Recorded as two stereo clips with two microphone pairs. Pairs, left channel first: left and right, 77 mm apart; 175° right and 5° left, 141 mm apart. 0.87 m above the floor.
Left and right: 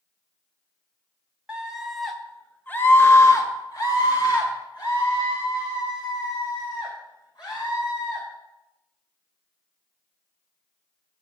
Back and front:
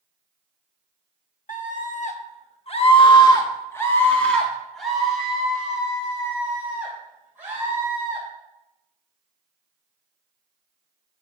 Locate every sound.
1.5 s a scream: 165° right, 1.6 m; by 8.2 s 80° left, 5 m